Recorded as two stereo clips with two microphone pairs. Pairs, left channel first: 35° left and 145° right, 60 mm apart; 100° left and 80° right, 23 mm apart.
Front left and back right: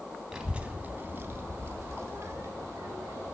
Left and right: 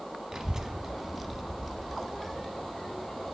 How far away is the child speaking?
About 0.6 m.